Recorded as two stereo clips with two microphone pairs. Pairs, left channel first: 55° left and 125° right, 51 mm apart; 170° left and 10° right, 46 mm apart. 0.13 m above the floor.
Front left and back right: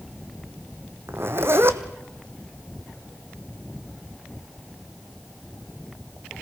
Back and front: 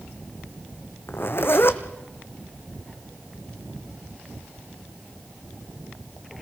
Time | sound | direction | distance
1.1 | a zipper | 160° right | 1.1 m